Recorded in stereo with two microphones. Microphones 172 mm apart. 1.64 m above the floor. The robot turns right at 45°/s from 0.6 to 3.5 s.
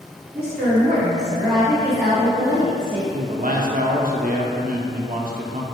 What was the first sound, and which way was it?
A woman speaking, 70° right.